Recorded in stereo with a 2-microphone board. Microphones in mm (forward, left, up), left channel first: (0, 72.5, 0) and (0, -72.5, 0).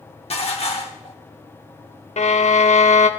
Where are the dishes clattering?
45° left (ahead or behind), 1.2 m.